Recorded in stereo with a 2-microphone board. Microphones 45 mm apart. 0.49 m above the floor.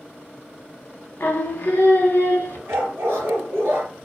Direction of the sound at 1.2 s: 50° left (ahead or behind).